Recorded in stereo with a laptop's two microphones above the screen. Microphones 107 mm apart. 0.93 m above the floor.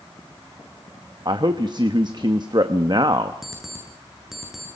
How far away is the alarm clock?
About 7.5 m.